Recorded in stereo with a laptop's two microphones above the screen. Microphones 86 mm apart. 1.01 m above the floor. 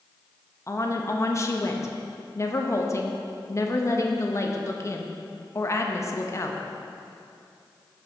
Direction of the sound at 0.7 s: 35° left (ahead or behind).